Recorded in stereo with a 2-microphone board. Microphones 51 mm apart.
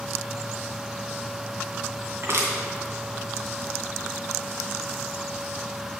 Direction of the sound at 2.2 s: 50° right (ahead or behind).